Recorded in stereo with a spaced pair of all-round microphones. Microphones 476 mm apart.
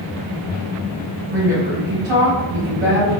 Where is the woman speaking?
80° right, 1.4 m.